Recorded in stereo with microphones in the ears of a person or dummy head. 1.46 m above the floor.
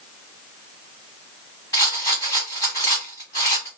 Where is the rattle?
20° left (ahead or behind), 1.4 m.